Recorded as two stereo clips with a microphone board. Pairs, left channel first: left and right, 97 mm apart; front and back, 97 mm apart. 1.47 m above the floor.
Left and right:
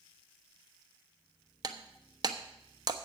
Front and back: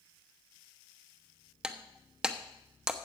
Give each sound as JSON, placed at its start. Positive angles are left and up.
{"t": 1.6, "sound": "breaking glass", "azimuth_deg": -100, "distance_m": 0.9}